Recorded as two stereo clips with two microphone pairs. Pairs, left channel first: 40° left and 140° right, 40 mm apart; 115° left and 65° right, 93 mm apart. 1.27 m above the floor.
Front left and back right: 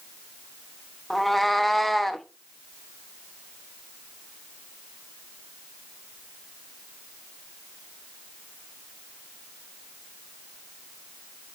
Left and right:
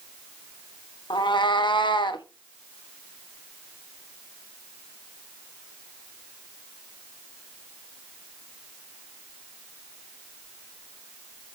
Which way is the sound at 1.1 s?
125° left.